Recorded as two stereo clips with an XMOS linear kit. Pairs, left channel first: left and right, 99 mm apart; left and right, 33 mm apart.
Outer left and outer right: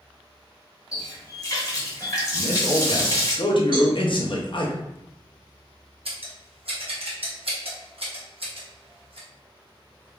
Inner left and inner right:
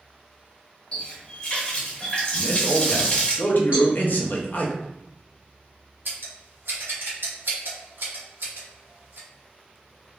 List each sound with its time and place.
0.9 s a running tap: 35° left (ahead or behind), 0.8 m
2.3 s a man speaking: 55° left (ahead or behind), 0.6 m
3.7 s a cowbell: 60° right (ahead or behind), 1.6 m
6.0 s scissors: 75° right (ahead or behind), 0.8 m